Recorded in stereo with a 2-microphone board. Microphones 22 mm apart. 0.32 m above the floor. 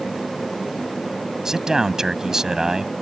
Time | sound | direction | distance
1.4 | a man speaking | 30° right (ahead or behind) | ?